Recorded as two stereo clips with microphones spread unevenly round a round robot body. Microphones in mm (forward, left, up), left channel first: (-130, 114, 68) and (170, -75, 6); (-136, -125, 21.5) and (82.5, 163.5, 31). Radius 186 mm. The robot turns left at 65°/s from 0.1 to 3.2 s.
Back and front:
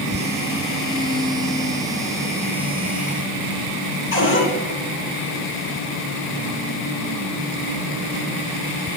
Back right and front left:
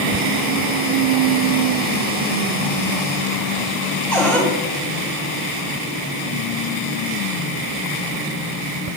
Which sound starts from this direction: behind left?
A cupboard door, at 4.1 s.